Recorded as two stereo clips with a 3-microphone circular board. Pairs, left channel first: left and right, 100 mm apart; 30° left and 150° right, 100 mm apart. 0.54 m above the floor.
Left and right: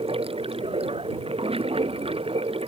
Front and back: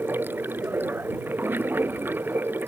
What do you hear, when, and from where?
0.0 s running water: 80° right